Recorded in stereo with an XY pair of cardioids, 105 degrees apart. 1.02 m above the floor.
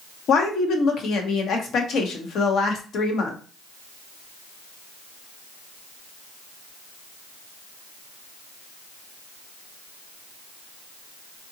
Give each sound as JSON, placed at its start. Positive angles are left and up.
{"t": 0.3, "sound": "a woman speaking", "azimuth_deg": 70, "distance_m": 0.8}